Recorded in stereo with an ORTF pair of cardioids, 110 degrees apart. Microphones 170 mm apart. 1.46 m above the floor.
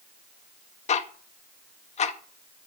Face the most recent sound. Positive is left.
turn(degrees=40)